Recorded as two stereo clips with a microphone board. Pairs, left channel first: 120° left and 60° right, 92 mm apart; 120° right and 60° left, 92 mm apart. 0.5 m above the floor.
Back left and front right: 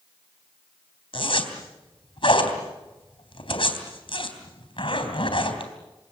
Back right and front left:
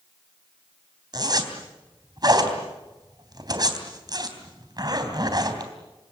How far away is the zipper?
About 3.5 m.